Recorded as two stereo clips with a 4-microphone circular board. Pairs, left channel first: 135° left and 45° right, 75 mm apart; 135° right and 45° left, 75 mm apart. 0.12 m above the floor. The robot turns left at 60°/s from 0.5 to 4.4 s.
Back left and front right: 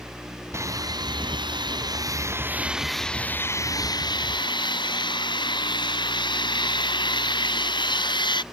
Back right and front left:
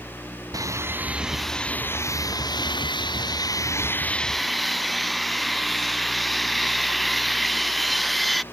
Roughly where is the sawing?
Ahead.